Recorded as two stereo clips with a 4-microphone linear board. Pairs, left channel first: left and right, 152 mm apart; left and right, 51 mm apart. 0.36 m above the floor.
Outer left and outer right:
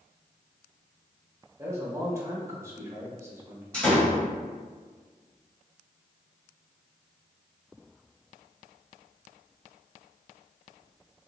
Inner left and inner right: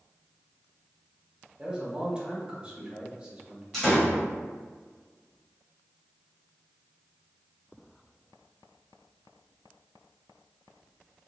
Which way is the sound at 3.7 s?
10° left (ahead or behind).